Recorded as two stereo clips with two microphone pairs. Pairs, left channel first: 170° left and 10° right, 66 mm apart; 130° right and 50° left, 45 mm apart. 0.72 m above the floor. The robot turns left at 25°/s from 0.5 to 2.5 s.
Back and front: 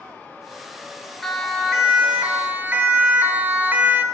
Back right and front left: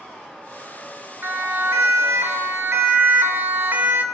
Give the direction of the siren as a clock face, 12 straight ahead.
9 o'clock.